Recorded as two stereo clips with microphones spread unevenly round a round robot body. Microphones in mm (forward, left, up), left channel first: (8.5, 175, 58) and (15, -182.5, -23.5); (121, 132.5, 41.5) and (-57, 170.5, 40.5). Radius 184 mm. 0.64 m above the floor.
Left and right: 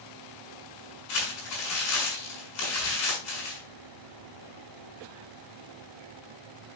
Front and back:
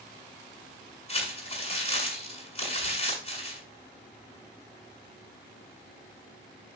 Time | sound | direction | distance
1.1 | crumpling | 40° left | 7.5 m